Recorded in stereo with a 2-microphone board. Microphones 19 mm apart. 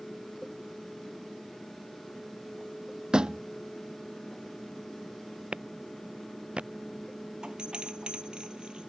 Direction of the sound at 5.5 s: 70° right (ahead or behind).